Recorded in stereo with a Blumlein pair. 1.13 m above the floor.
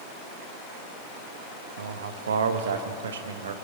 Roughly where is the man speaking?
Ahead right.